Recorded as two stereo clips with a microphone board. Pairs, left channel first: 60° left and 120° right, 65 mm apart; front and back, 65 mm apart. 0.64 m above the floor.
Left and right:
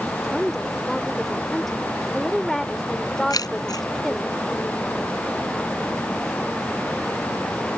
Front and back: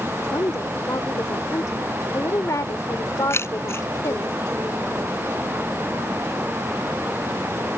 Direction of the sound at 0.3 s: 25° right.